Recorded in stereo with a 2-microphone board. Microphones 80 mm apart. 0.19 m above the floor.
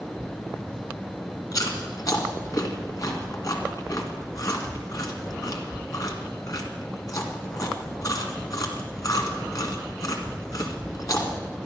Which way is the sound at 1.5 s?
50° left (ahead or behind).